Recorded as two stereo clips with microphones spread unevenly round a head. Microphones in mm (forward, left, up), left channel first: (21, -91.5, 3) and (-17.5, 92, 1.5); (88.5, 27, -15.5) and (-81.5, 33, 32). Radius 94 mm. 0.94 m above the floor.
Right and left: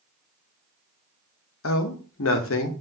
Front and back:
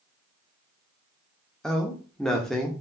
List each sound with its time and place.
1.6 s a man speaking: 85° right, 0.7 m